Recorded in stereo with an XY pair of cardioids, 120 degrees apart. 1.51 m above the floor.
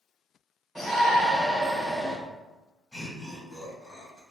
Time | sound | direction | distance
0.8 | a shout | 5° left | 1.3 m
2.9 | laughter | 20° left | 2.0 m